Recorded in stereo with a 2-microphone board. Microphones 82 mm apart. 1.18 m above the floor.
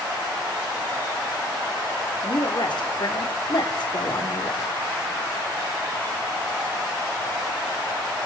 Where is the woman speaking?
65° left (ahead or behind), 3.5 m.